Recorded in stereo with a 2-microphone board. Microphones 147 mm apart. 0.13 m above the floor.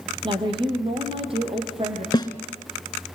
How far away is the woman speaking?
About 4 m.